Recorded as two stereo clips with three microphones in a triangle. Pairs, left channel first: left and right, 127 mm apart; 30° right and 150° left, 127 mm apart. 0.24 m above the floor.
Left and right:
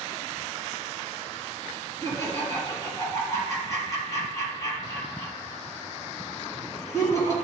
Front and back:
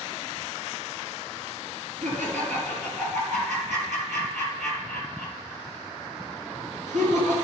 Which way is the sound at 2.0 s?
155° left.